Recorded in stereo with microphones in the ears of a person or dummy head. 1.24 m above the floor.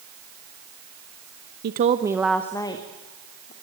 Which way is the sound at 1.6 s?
55° right (ahead or behind).